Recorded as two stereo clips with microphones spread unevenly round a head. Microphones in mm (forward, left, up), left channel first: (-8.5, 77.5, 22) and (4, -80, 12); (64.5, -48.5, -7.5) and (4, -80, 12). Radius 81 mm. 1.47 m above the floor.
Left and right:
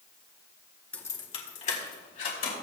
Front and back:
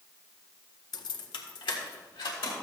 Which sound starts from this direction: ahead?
Keys jangling, at 0.9 s.